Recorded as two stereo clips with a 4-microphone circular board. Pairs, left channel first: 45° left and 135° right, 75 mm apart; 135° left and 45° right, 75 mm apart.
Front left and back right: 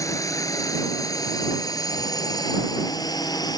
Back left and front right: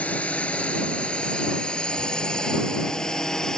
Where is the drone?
70° left; by 3.6 s 55° left.